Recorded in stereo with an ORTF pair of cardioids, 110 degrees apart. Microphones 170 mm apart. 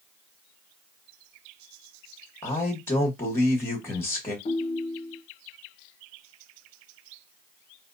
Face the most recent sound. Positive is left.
turn(degrees=40)